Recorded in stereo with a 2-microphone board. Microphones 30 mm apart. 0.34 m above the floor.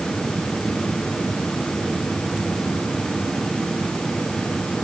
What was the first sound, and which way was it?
Only background noise.